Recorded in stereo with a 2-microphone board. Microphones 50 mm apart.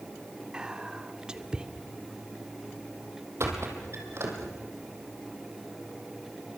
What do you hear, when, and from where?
0.5 s whispering: 15° right (ahead or behind), 1.1 m
3.4 s a squeak: 60° right (ahead or behind), 4 m